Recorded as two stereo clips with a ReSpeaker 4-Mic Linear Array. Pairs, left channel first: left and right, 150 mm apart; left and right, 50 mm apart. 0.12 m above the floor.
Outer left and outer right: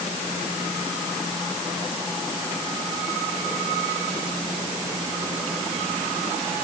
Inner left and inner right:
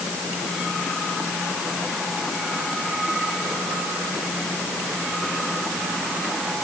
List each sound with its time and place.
Only background noise.